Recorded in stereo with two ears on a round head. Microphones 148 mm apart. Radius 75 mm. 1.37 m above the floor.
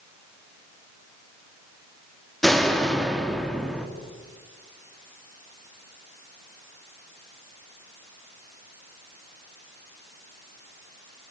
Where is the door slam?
Centre (ahead or behind), 2 m.